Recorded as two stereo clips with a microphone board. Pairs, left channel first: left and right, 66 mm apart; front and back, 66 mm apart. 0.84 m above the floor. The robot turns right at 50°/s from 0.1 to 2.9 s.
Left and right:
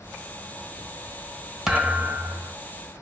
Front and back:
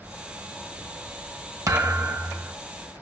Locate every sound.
1.7 s a thud: 170° right, 0.8 m; by 2.5 s 125° right, 0.8 m